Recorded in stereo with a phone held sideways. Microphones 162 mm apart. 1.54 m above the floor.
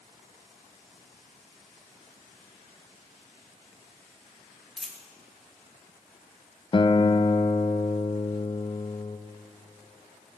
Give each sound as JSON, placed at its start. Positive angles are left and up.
{"t": 4.8, "sound": "a dropped coin", "side_deg": 0, "distance_m": 1.3}
{"t": 6.7, "sound": "a guitar", "side_deg": 35, "distance_m": 0.5}